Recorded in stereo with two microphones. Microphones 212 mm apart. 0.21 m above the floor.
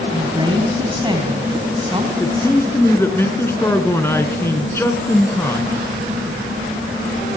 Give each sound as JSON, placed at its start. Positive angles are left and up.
{"t": 0.1, "sound": "a woman speaking", "side_deg": -25, "distance_m": 1.8}
{"t": 2.2, "sound": "a man speaking", "side_deg": 10, "distance_m": 2.0}